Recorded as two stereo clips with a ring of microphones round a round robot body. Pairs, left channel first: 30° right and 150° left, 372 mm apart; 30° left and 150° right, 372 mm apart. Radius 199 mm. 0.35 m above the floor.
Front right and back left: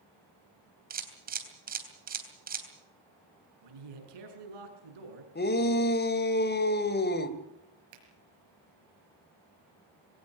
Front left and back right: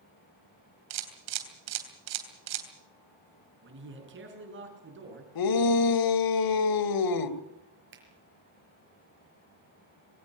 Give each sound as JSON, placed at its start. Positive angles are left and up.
{"t": 0.9, "sound": "a camera shutter", "azimuth_deg": -145, "distance_m": 3.0}
{"t": 3.6, "sound": "a man speaking", "azimuth_deg": 150, "distance_m": 6.0}
{"t": 5.3, "sound": "a shout", "azimuth_deg": 30, "distance_m": 1.9}
{"t": 7.9, "sound": "a finger snap", "azimuth_deg": 150, "distance_m": 5.5}